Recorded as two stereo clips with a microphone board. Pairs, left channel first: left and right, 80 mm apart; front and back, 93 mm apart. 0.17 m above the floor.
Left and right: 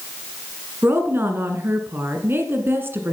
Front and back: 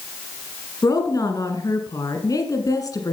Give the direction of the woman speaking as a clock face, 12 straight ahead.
1 o'clock.